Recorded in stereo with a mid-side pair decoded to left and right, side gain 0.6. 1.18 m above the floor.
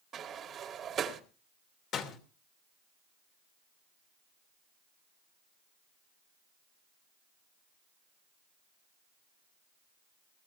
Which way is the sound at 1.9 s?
50° left.